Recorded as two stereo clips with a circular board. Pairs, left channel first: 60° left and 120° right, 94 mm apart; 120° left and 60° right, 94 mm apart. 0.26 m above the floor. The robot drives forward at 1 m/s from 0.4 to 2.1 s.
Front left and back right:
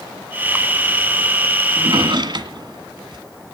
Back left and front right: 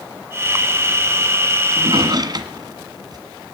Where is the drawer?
80° right, 1.7 m; by 3.2 s 95° right, 1.7 m.